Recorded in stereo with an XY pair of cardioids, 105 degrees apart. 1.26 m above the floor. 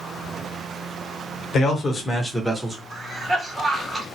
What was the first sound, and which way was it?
A man speaking, 50° left.